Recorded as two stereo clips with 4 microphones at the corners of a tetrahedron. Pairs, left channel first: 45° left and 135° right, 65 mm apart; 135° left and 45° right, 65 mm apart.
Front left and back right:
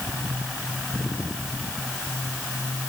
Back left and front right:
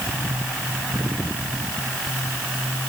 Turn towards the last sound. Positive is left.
No sound to turn to.